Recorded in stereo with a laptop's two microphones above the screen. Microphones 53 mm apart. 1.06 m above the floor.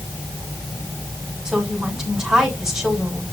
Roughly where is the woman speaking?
Centre.